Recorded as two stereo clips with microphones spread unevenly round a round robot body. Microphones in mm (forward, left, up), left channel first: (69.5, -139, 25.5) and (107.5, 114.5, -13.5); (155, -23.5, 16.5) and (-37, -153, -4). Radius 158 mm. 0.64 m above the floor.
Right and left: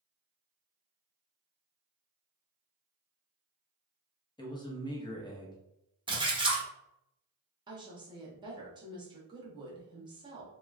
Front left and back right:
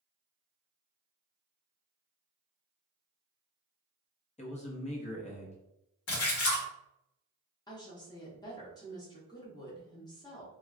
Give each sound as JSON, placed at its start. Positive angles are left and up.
{"t": 4.4, "sound": "a man speaking", "azimuth_deg": -20, "distance_m": 1.0}
{"t": 6.1, "sound": "a splash", "azimuth_deg": 15, "distance_m": 1.2}
{"t": 7.7, "sound": "a woman speaking", "azimuth_deg": 100, "distance_m": 0.8}